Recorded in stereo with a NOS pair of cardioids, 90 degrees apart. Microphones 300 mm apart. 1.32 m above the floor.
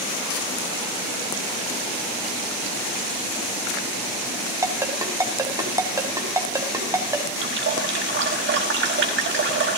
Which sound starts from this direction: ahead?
A ringtone, at 4.6 s.